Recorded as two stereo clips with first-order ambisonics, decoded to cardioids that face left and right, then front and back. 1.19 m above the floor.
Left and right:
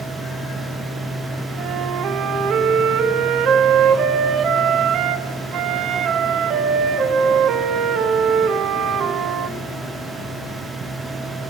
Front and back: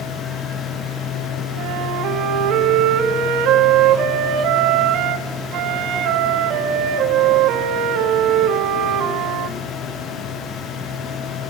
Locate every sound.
1.6 s a flute: 140° right, 1.4 m